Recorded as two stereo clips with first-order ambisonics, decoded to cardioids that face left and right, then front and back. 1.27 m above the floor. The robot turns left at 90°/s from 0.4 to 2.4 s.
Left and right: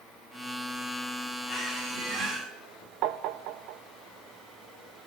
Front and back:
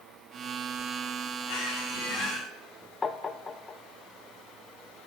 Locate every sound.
1.5 s a squeak: 10° left, 4.5 m; by 2.5 s 75° right, 4.5 m
3.0 s tapping: 75° right, 0.7 m